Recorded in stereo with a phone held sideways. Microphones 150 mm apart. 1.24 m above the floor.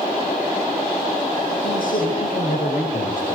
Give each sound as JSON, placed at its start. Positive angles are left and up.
{"t": 1.6, "sound": "a man speaking", "side_deg": 70, "distance_m": 6.0}